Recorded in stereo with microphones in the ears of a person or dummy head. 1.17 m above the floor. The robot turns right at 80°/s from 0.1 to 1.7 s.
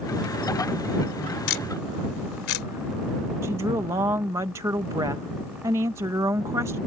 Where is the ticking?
75° left (ahead or behind); by 2.7 s 85° left.